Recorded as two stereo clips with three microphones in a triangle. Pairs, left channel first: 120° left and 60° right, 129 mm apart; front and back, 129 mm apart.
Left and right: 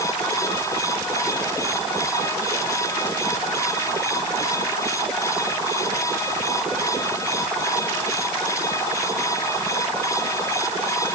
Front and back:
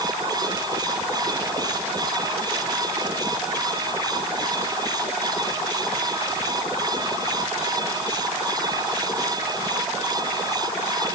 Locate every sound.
Only background noise.